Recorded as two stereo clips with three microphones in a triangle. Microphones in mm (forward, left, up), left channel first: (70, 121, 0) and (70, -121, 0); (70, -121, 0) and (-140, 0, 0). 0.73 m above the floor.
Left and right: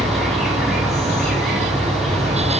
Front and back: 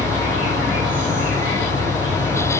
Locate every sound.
0.0 s an insect: straight behind, 1.2 m